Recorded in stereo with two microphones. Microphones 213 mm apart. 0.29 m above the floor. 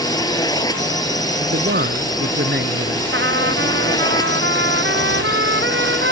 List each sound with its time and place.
0.0 s a drone: 20° left (ahead or behind)
1.4 s a man speaking: 55° right (ahead or behind)
3.1 s a trumpet: 60° right (ahead or behind)